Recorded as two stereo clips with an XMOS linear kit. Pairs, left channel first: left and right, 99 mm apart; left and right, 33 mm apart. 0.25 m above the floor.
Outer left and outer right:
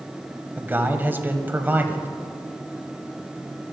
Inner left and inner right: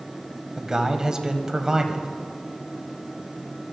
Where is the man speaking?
20° right (ahead or behind), 1.2 m.